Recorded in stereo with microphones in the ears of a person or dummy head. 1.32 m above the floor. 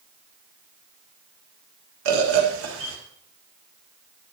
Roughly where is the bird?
Right.